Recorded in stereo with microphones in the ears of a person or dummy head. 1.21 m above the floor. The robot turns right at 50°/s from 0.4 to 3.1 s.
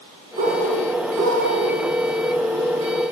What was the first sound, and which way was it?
A bird, 135° right.